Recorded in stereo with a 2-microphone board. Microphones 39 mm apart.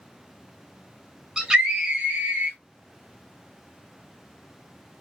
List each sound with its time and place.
1.4 s a scream: 15° right (ahead or behind), 1.5 m; by 2.6 s 35° right (ahead or behind), 1.7 m